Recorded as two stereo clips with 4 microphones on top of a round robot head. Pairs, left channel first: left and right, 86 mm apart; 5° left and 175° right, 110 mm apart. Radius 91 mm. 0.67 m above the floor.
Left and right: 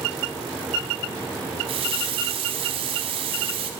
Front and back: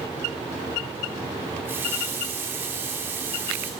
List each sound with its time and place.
1.6 s a running tap: 105° right, 0.9 m